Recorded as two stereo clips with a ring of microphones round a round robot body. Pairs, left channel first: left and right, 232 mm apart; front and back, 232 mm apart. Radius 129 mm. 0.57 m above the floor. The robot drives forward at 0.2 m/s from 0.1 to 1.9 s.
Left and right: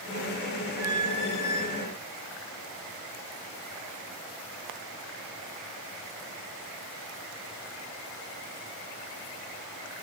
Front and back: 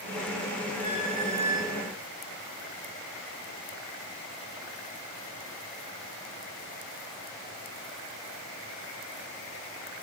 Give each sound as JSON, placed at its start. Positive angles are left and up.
{"t": 0.8, "sound": "a squeak", "azimuth_deg": 95, "distance_m": 1.8}